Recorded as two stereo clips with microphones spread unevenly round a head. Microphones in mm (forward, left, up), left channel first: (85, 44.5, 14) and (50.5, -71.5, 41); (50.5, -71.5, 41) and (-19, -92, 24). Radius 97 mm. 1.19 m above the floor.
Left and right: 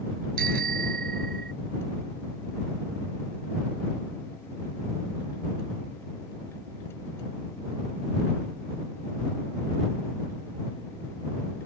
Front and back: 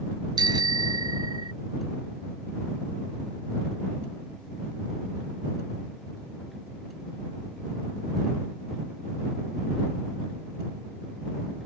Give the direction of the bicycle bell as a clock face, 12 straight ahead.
5 o'clock.